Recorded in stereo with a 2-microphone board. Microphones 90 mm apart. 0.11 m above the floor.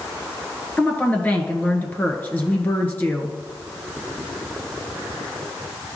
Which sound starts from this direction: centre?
A woman speaking, at 0.8 s.